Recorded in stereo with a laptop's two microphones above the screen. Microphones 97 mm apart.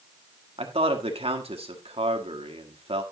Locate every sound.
0.6 s a man speaking: 85° right, 1.5 m